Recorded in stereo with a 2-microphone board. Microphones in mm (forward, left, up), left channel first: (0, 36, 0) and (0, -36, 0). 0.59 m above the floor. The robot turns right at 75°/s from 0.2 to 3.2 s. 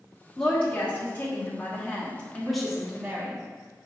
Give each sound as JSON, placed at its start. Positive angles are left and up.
{"t": 0.4, "sound": "a woman speaking", "side_deg": 5, "distance_m": 1.3}